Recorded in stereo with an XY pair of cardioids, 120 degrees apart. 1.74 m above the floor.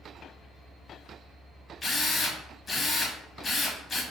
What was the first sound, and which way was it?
A drill, 30° left.